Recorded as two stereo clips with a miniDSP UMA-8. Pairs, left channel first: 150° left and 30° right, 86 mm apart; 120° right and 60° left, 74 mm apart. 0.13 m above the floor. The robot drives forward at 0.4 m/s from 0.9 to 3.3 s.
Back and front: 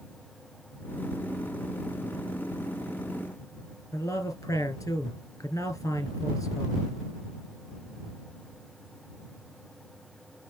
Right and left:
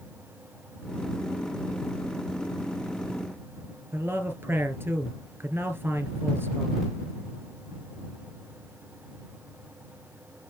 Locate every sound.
3.9 s a man speaking: 115° left, 2 m